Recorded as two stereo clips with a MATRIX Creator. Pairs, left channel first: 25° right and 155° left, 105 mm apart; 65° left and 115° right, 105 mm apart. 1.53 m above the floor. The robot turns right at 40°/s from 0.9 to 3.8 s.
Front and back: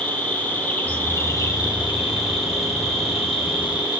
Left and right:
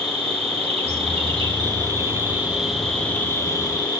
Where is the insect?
95° right, 2.5 m; by 4.0 s 20° left, 2.5 m.